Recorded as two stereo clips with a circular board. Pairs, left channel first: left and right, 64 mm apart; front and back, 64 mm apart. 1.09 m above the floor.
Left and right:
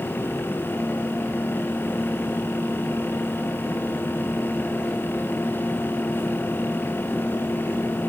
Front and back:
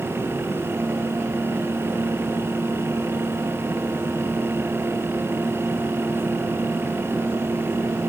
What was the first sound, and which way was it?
Only background noise.